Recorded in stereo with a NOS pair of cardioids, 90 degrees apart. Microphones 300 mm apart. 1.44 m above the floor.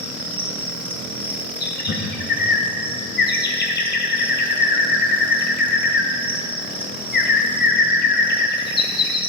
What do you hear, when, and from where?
0.0 s an insect: 5° right, 3 m
1.6 s a bird: 35° left, 1.3 m